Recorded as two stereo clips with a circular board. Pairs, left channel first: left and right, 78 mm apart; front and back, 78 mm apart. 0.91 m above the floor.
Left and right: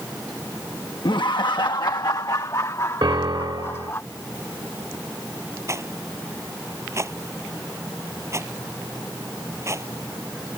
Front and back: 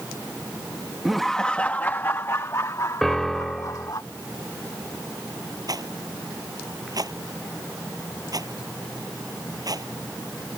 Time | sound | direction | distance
1.1 | laughter | 95° left | ?
3.0 | a piano | 85° right | ?
5.7 | a rattle | 145° right | ?